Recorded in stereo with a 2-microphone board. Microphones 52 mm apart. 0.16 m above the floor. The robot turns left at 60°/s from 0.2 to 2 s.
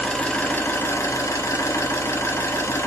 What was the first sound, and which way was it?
An engine running, 165° left.